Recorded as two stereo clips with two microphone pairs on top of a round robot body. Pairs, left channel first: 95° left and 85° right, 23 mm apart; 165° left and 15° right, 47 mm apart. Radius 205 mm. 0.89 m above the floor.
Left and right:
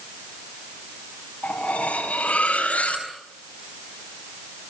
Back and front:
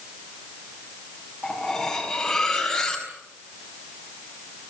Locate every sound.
1.4 s cutlery clinking: 80° left, 5.5 m